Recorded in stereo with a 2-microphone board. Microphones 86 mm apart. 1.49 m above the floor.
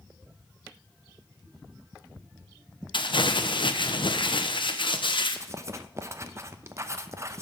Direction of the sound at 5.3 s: 35° right (ahead or behind).